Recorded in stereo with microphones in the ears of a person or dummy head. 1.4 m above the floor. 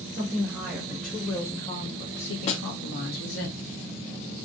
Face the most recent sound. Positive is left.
turn(degrees=40)  # may be behind; listen again after turning